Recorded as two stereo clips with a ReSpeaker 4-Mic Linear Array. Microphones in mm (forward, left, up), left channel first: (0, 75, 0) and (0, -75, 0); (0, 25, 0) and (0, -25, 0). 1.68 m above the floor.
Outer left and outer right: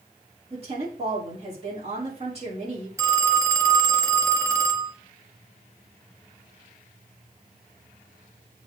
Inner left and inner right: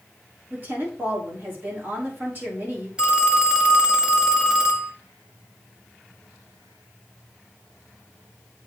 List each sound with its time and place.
0.5 s a woman speaking: 45° right (ahead or behind), 4.5 m
3.0 s a phone ringing: 20° right (ahead or behind), 1.4 m